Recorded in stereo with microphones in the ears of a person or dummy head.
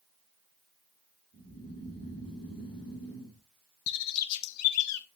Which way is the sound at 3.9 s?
80° left.